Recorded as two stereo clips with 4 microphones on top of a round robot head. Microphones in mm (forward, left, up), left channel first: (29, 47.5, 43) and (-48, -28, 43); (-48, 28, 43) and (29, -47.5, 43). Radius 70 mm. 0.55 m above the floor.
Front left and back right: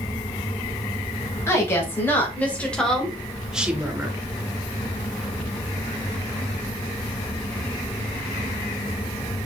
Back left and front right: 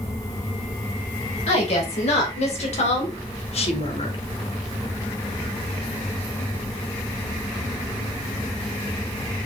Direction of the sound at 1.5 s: 110° left.